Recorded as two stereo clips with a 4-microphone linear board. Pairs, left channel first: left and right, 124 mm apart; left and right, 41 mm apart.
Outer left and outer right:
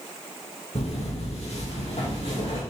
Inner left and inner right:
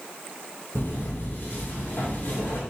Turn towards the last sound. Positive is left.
turn(degrees=55)  # may be behind; listen again after turning